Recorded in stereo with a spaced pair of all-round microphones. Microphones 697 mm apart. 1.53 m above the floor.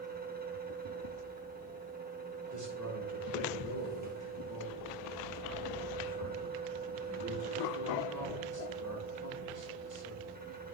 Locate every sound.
0.0 s a fan: 15° right (ahead or behind), 1.5 m
2.5 s a man speaking: 25° right (ahead or behind), 6.5 m